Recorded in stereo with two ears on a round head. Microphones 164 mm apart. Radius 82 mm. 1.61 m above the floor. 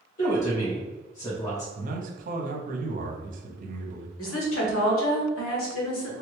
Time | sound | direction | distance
0.2 | a woman speaking | 40° left (ahead or behind) | 1.7 m
1.8 | a man speaking | 45° right (ahead or behind) | 0.8 m
4.2 | a woman speaking | 85° left | 1.1 m